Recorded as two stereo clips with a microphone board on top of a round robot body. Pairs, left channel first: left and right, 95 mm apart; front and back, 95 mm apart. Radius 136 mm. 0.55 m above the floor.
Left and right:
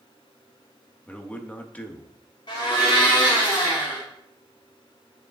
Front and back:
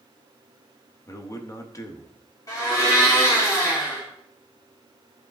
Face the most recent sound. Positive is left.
turn(degrees=55)